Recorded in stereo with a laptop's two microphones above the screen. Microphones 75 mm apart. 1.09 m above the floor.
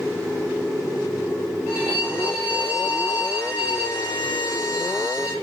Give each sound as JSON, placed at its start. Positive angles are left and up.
{"t": 1.7, "sound": "a violin", "side_deg": -25, "distance_m": 1.9}